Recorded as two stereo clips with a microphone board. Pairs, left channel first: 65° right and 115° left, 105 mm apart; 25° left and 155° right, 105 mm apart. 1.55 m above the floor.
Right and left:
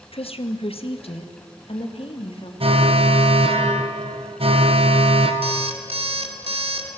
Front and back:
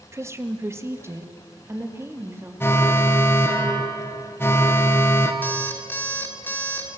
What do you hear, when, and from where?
0.1 s a woman speaking: 95° right, 1.5 m; by 2.5 s 90° right, 3 m
2.6 s an alarm: 90° left, 2 m
5.4 s an alarm clock: 95° left, 2.5 m